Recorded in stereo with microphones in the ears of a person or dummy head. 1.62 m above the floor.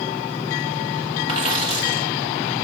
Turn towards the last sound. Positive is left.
turn(degrees=-30)  # may be behind; listen again after turning